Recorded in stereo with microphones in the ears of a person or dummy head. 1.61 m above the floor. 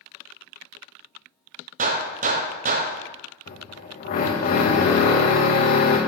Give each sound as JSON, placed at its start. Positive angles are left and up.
{"t": 1.8, "sound": "a gunshot", "side_deg": -45, "distance_m": 0.9}
{"t": 3.5, "sound": "a drill", "side_deg": 50, "distance_m": 1.6}